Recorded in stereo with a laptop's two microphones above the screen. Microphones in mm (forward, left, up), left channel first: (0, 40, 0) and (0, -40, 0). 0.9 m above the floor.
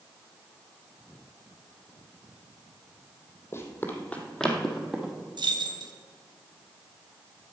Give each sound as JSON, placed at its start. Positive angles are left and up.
{"t": 3.5, "sound": "running footsteps", "side_deg": 35, "distance_m": 2.0}
{"t": 5.4, "sound": "keys jangling", "side_deg": -70, "distance_m": 1.0}